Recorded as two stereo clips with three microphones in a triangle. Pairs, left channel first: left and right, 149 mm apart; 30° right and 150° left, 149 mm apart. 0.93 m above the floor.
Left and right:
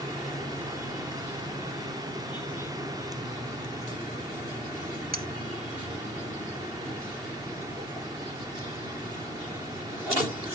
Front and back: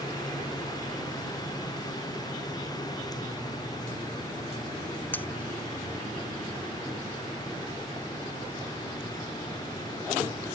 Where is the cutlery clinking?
105° right.